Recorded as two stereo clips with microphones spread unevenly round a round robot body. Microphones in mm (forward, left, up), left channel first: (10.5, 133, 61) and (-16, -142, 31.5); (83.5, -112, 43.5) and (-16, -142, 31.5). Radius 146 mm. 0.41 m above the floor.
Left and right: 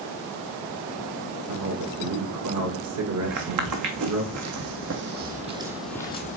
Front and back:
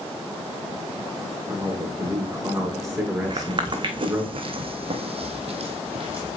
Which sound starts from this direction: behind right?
Footsteps, at 3.2 s.